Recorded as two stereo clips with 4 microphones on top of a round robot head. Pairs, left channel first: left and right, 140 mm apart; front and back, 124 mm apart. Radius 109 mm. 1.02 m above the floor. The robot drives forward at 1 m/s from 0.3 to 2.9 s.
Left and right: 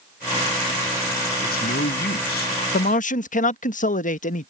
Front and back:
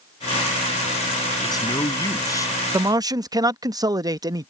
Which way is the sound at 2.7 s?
110° left.